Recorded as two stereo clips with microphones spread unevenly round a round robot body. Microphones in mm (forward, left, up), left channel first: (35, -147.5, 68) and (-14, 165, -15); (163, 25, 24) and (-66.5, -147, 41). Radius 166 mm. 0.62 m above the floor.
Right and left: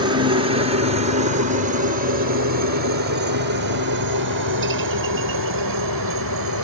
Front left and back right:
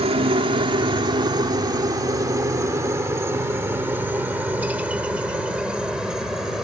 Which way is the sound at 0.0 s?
150° left.